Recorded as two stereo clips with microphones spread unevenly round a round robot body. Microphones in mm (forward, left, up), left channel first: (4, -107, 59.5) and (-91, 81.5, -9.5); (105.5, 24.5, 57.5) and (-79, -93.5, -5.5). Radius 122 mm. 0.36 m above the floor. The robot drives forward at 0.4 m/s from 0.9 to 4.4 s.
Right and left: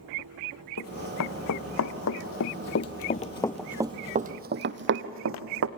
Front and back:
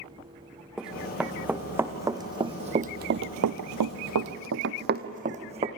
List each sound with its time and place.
0.8 s running footsteps: 60° right, 2 m; by 5.7 s 140° left, 1.4 m